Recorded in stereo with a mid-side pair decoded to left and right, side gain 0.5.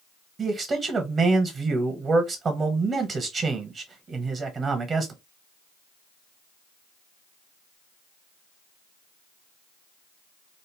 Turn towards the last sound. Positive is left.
turn(degrees=-40)